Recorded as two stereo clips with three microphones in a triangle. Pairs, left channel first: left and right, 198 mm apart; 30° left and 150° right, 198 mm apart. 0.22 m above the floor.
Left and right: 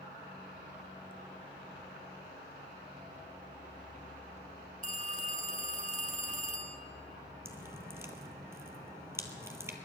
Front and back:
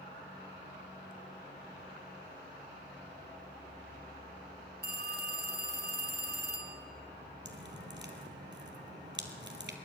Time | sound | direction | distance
4.8 | a phone ringing | 135° right | 1.7 m
7.5 | dripping | 165° right | 1.4 m